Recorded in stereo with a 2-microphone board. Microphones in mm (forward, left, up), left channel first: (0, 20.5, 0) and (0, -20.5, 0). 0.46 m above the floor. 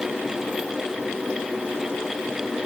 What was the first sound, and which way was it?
Only background noise.